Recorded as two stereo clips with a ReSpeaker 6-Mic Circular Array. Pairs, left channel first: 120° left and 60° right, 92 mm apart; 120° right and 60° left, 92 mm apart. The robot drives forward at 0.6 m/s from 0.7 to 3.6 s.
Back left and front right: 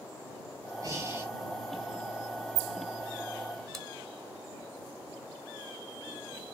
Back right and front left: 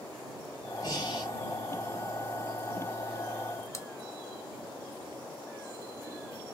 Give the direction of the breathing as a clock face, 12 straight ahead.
3 o'clock.